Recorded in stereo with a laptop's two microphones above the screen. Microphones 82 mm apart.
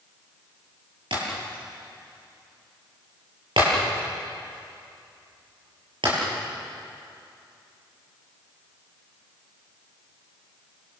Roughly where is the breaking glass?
Right.